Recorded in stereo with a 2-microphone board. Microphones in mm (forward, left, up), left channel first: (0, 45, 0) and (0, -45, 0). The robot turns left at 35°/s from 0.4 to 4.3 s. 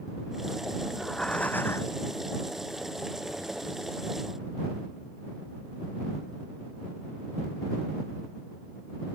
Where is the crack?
No crack in this recording.